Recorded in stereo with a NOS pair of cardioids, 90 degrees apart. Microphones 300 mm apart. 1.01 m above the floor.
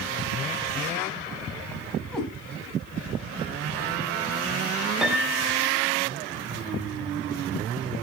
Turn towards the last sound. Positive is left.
turn(degrees=0)